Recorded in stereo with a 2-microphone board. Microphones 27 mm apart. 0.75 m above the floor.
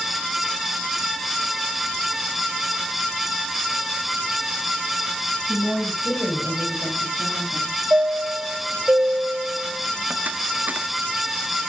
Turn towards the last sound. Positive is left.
turn(degrees=-75)  # may be behind; listen again after turning